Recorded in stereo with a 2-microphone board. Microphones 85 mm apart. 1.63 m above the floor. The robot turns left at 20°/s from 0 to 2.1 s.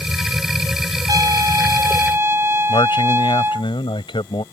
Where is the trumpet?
50° right (ahead or behind); by 3.7 s 30° right (ahead or behind).